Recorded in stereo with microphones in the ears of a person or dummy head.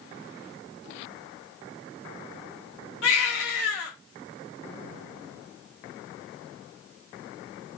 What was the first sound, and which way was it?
A baby crying, 80° left.